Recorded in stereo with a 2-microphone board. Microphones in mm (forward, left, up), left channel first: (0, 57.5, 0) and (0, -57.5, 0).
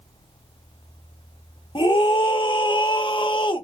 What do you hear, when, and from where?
1.8 s a scream: 45° left (ahead or behind), 1.0 m